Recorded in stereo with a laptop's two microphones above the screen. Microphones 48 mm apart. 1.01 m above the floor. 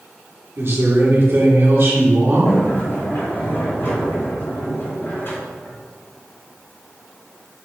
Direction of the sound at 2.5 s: 55° left (ahead or behind).